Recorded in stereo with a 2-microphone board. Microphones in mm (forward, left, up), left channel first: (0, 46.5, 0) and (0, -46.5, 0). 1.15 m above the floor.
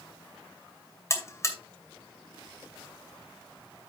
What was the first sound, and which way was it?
A buzzer, 30° left (ahead or behind).